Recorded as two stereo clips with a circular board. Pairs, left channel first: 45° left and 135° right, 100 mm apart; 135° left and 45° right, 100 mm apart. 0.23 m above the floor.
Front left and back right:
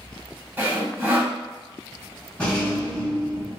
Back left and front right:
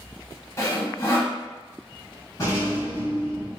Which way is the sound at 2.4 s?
115° left.